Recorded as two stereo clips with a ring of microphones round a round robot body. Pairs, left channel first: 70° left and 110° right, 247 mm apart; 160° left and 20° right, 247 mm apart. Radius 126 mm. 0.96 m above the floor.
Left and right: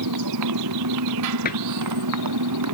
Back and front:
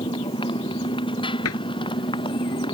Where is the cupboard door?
125° left.